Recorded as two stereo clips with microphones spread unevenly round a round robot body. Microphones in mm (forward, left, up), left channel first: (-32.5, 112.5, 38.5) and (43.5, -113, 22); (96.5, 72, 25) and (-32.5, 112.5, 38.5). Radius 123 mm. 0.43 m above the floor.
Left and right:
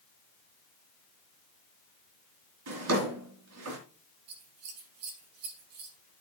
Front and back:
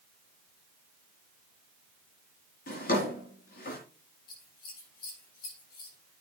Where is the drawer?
50° right, 3.5 m.